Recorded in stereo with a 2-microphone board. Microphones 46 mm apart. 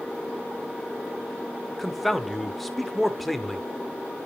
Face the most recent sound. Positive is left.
turn(degrees=5)  # may be behind; listen again after turning